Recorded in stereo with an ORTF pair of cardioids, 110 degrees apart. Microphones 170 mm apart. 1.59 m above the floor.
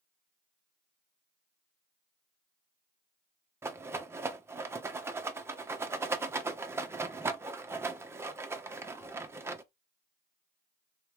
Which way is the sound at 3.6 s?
15° right.